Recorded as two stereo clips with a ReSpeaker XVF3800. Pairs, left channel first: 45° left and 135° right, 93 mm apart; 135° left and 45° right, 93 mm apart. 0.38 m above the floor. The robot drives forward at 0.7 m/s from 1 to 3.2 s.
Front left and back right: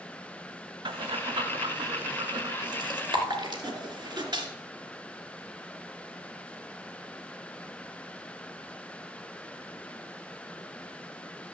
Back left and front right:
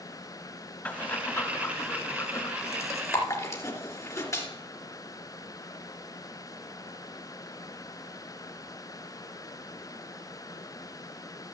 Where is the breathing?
150° right, 0.9 m; by 4.5 s 170° right, 2.5 m.